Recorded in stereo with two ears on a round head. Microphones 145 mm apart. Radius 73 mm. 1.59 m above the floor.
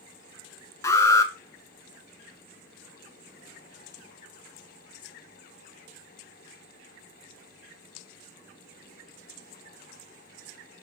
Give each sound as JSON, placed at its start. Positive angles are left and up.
{"t": 0.8, "sound": "an alarm", "side_deg": 20, "distance_m": 1.2}